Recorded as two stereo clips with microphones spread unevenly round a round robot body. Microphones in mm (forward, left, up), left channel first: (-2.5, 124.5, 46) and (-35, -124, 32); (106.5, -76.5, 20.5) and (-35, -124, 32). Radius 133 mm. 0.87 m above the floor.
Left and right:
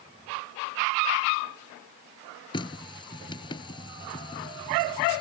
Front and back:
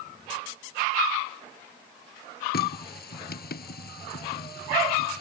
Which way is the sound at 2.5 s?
10° left.